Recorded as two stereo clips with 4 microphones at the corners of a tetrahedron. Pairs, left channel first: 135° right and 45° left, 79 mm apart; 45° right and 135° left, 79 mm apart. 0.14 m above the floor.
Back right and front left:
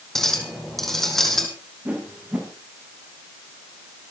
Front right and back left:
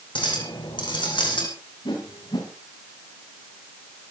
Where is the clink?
50° right, 4 m.